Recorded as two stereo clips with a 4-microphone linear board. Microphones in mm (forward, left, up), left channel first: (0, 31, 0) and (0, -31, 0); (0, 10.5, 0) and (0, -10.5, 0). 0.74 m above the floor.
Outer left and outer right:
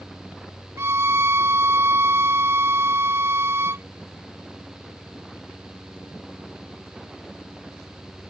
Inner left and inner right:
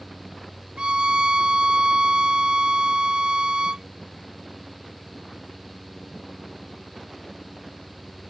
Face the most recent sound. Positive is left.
turn(degrees=-45)  # may be behind; listen again after turning